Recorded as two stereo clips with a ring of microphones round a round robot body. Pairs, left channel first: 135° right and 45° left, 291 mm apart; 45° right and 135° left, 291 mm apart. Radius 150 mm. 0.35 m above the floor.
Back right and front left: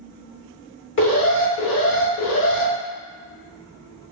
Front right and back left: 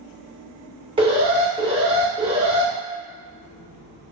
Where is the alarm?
160° right, 0.8 m.